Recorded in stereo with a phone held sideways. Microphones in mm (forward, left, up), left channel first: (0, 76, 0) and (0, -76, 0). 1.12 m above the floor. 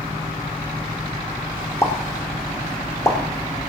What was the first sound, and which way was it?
A pop, 20° left (ahead or behind).